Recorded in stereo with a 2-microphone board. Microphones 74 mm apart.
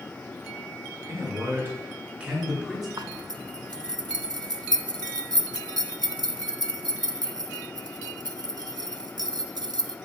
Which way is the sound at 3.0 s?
85° right.